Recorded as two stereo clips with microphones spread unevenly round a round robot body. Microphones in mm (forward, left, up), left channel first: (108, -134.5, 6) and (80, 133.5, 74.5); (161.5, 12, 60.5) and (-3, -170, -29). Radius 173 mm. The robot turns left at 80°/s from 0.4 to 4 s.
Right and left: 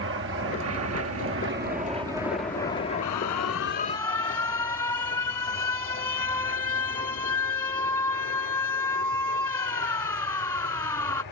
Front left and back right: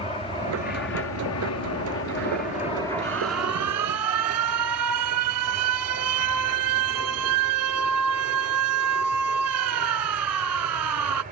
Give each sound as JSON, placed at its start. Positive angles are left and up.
{"t": 0.0, "sound": "an aircraft", "azimuth_deg": 135}
{"t": 3.0, "sound": "an alarm", "azimuth_deg": -90}